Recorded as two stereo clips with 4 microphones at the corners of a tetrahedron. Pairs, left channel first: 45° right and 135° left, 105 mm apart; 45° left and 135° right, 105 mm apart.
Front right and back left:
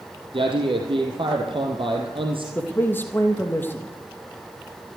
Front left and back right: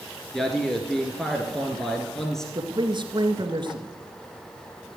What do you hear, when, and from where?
0.3 s a man speaking: 130° left, 2 m
2.5 s a man speaking: 110° right, 2 m